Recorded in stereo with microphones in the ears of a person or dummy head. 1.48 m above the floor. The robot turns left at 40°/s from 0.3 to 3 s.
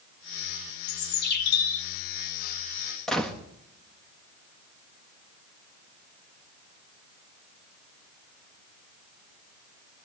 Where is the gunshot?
Centre (ahead or behind), 1.5 m.